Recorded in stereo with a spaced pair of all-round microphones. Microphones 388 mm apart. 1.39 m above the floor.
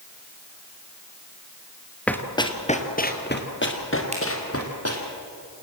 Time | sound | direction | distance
2.1 | running footsteps | 5° left (ahead or behind) | 1.6 m
4.1 | a finger snap | 15° right (ahead or behind) | 6 m